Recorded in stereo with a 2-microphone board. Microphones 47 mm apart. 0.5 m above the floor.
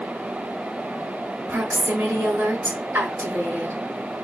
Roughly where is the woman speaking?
Right.